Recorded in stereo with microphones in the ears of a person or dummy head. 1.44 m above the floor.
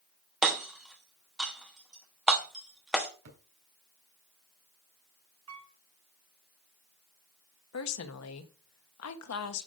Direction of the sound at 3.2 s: 70° right (ahead or behind).